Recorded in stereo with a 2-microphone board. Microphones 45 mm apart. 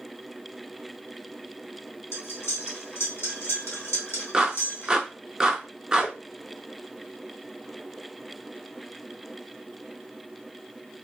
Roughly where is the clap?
Centre.